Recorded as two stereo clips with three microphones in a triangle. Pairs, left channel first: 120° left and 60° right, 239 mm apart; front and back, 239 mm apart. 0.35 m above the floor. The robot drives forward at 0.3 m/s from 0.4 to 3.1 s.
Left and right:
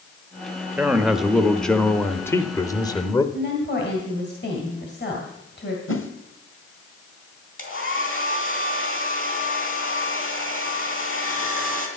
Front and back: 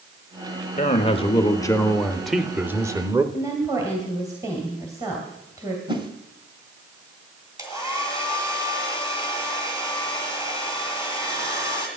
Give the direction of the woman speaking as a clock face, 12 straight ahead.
8 o'clock.